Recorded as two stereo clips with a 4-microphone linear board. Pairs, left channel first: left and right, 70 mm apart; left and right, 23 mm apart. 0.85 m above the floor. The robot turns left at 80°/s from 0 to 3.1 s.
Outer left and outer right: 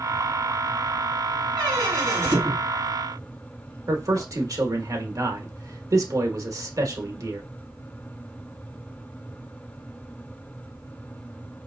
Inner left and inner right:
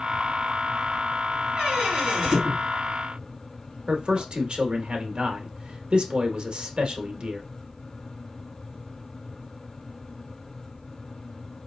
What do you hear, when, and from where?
1.6 s a squeak: 75° right (ahead or behind), 3.5 m; by 4.3 s 20° left (ahead or behind), 3.5 m
3.9 s a man speaking: 50° right (ahead or behind), 0.9 m